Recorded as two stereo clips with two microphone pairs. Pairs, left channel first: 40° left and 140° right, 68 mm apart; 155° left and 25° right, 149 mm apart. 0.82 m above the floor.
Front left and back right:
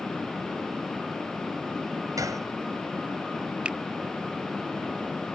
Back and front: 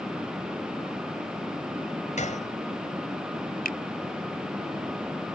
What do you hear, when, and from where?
2.2 s a gunshot: 170° right
3.6 s a finger snap: 150° left